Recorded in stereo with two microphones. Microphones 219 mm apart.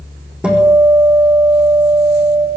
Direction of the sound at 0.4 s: 5° right (ahead or behind).